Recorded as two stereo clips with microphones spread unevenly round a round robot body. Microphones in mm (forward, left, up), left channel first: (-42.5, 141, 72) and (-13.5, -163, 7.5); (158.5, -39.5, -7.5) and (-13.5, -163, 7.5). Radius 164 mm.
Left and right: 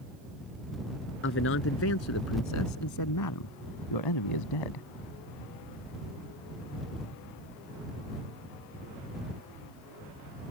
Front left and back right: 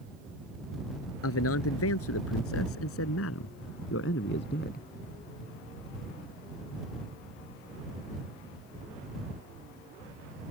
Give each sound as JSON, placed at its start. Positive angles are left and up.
{"t": 1.2, "sound": "a man speaking", "azimuth_deg": 40}